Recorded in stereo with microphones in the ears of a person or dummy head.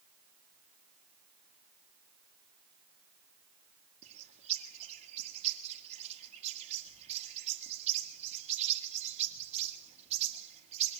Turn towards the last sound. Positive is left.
turn(degrees=-35)  # may be behind; listen again after turning